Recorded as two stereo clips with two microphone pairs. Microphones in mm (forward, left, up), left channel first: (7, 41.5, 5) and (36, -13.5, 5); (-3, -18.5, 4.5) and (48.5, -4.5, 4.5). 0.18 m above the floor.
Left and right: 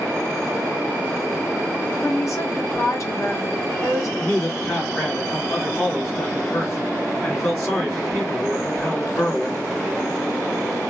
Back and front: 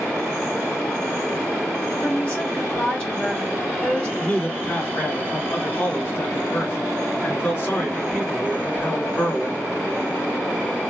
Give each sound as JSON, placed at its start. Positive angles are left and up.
{"t": 2.0, "sound": "a woman speaking", "azimuth_deg": 140, "distance_m": 2.0}
{"t": 4.2, "sound": "a man speaking", "azimuth_deg": 170, "distance_m": 2.0}